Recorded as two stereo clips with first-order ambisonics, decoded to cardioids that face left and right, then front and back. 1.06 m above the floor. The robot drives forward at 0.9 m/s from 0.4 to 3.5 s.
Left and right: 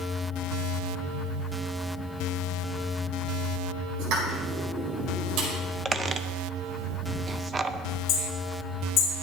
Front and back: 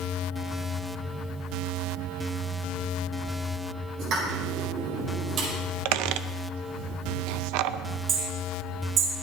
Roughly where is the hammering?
Behind left.